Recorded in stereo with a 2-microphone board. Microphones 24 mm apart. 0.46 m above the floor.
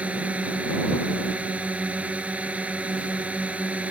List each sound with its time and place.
0.0 s a drone: 70° right (ahead or behind)